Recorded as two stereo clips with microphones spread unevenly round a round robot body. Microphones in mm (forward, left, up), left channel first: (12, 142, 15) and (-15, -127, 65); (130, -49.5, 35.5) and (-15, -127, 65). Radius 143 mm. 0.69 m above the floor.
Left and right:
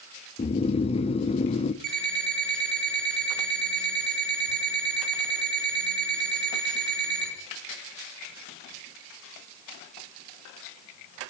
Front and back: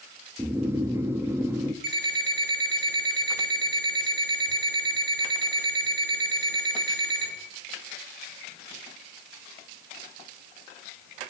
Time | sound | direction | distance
0.4 | snoring | 125° left | 0.6 m
1.8 | an alarm clock | 125° right | 6 m